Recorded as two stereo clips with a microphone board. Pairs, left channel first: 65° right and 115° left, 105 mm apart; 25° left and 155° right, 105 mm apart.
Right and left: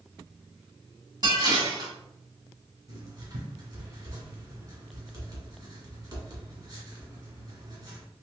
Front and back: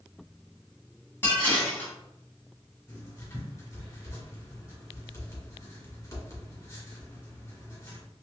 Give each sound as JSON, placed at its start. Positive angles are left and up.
{"t": 1.2, "sound": "dishes clattering", "azimuth_deg": 85, "distance_m": 1.3}
{"t": 2.9, "sound": "writing", "azimuth_deg": 75, "distance_m": 1.9}